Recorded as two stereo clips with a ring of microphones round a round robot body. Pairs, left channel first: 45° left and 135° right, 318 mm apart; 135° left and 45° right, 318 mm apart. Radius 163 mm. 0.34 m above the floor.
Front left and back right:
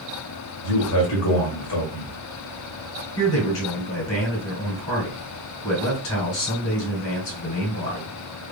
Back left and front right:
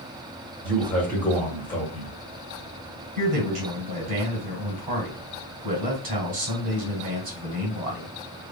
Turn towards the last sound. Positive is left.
turn(degrees=15)